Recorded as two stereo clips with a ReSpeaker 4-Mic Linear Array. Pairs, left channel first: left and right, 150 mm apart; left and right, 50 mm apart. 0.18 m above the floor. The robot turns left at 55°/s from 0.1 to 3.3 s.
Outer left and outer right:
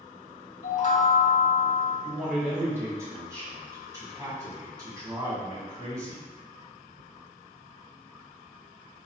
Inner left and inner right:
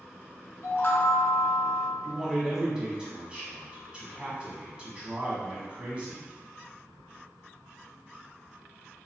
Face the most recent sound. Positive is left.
turn(degrees=-20)  # may be behind; listen again after turning